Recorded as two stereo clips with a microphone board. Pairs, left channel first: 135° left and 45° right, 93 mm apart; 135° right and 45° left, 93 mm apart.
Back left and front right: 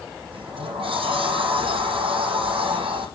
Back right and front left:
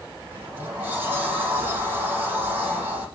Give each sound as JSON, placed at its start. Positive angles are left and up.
{"t": 0.3, "sound": "a sliding door", "azimuth_deg": -25, "distance_m": 7.0}